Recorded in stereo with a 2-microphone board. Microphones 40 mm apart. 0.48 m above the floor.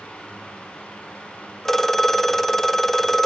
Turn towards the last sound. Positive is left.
turn(degrees=10)  # may be behind; listen again after turning